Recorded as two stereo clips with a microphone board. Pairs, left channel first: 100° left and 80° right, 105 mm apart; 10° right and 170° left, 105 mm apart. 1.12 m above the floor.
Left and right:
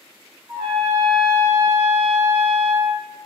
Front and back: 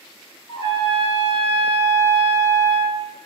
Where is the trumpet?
15° right, 1.3 m.